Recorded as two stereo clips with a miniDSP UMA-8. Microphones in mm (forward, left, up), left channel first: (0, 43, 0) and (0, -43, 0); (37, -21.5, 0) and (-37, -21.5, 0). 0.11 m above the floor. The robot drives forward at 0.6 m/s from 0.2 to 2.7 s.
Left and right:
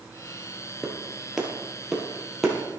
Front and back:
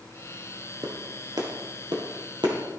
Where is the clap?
175° right, 1.5 m.